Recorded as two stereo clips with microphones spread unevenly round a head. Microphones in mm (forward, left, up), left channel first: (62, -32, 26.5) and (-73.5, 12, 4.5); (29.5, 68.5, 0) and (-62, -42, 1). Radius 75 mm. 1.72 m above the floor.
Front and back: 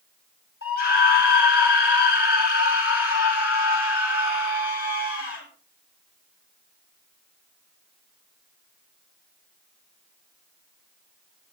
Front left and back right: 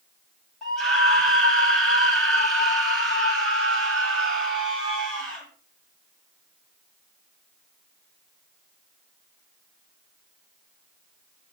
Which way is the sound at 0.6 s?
40° right.